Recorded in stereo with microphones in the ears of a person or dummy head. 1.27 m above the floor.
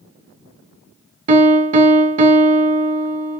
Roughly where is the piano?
Right.